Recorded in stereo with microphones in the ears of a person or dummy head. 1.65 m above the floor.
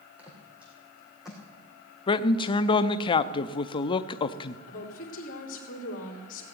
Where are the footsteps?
10° right (ahead or behind), 4 m; by 1.4 s 5° right (ahead or behind), 4.5 m.